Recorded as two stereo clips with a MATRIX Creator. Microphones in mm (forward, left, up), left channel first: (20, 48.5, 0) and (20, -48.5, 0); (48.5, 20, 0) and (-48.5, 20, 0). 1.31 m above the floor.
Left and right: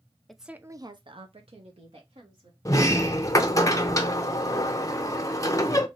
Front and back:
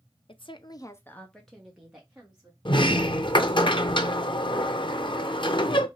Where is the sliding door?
35° left, 0.6 m.